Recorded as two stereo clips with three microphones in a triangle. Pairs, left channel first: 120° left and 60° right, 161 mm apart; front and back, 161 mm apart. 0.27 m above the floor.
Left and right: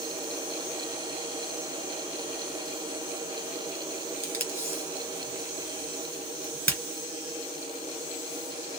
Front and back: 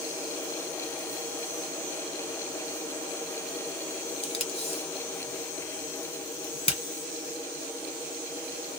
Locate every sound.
4.2 s tape being pulled: 45° left, 2 m